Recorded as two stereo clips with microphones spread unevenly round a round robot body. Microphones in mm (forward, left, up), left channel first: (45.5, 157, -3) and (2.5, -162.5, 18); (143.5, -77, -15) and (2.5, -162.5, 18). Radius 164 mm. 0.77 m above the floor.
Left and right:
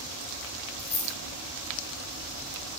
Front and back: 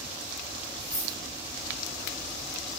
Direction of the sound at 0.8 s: 155° left.